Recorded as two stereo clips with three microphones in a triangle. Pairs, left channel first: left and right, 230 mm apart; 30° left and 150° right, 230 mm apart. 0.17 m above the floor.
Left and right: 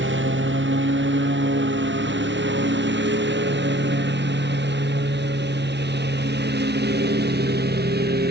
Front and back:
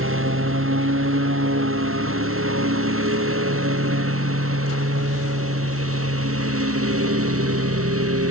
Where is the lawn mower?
125° right; by 8.3 s 135° right.